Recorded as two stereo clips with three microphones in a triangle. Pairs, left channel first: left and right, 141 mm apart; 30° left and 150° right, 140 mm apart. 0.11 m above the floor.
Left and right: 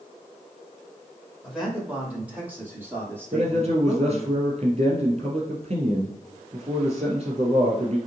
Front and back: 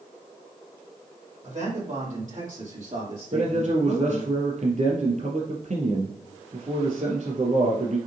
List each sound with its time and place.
1.4 s a man speaking: 175° right, 3.5 m; by 4.3 s 155° right, 4 m
3.3 s a man speaking: 130° right, 3.5 m